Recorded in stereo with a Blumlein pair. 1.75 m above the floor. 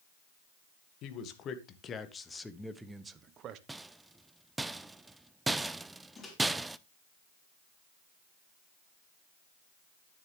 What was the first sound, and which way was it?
A man speaking, 35° left.